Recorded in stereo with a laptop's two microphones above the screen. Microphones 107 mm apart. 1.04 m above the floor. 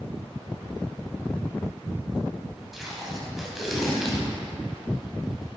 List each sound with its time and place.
2.7 s tape being pulled: 5° right (ahead or behind), 1.0 m